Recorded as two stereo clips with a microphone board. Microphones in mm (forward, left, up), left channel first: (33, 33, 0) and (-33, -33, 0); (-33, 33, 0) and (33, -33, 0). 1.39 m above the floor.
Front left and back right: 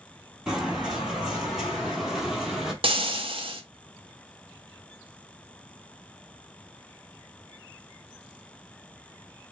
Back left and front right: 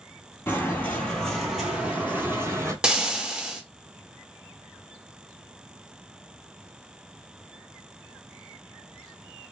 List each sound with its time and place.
0.5 s footsteps: 155° left, 1.5 m; by 2.7 s 55° right, 1.6 m
2.8 s frying: 125° right, 0.7 m